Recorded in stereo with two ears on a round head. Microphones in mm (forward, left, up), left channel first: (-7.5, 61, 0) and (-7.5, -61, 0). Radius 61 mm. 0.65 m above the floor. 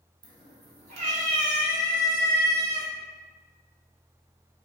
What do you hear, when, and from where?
0.2 s a cat meowing: 35° right (ahead or behind), 0.7 m; by 2.9 s 65° right (ahead or behind), 2.5 m